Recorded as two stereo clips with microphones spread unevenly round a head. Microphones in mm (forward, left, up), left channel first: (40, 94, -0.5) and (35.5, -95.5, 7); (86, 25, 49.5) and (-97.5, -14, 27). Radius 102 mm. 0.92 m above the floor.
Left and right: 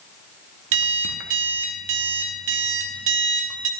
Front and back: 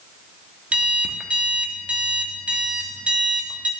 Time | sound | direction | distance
0.7 | an alarm clock | 85° right | 0.8 m